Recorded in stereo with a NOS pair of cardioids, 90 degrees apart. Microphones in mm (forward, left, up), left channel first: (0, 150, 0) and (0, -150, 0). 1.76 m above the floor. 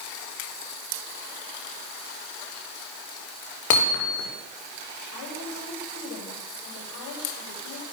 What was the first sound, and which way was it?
Hammering, 65° left.